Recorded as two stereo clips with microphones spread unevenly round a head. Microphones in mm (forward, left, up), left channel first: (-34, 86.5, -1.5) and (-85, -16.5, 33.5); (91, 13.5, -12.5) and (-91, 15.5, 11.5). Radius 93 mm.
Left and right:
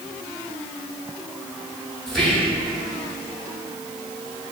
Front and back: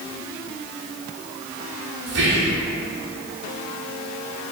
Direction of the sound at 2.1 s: 150° left.